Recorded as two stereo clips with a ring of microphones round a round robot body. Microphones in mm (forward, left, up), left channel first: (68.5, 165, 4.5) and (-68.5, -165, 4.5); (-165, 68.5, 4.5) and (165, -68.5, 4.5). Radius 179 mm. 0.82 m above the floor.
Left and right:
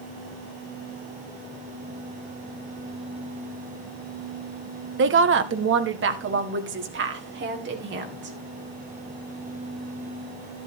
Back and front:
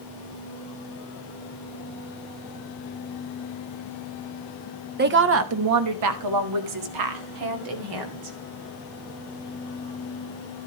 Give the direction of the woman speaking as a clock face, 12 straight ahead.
2 o'clock.